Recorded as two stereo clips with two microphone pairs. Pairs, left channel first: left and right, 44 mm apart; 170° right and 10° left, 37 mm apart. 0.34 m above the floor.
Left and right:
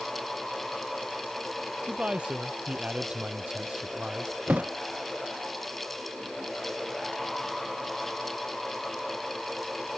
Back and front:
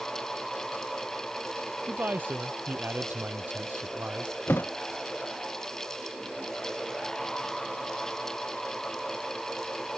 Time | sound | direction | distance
1.9 | a man speaking | 20° right | ?
4.5 | a thud | 145° right | ?